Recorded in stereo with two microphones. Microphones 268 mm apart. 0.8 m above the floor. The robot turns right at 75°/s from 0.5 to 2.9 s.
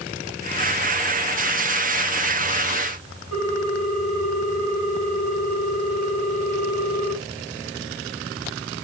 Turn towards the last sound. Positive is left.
turn(degrees=-50)  # may be behind; listen again after turning